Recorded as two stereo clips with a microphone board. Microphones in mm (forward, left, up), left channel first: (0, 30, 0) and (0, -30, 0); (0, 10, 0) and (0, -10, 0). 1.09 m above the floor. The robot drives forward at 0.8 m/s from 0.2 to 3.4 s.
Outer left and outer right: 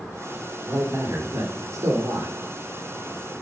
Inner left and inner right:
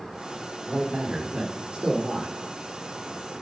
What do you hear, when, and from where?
0.7 s a man speaking: 65° right (ahead or behind), 3.5 m; by 2.4 s 80° right, 3.5 m